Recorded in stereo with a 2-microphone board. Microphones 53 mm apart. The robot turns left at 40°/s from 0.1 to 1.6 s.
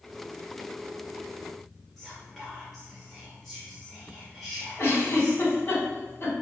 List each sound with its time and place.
2.0 s whispering: centre (ahead or behind), 0.5 m
4.8 s a giggle: 45° left (ahead or behind), 1.1 m